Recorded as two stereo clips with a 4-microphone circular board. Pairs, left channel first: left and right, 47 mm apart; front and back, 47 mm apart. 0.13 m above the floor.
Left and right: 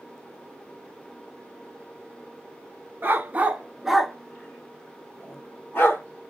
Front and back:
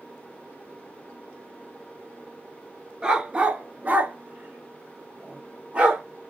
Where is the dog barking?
115° right, 0.7 m; by 6.0 s 115° left, 1.3 m.